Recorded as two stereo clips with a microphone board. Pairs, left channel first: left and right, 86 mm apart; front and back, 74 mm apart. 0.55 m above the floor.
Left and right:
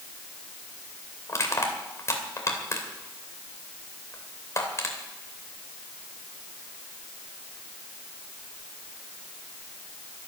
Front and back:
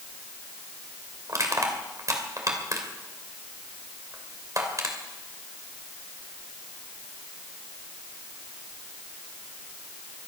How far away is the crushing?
About 2.5 m.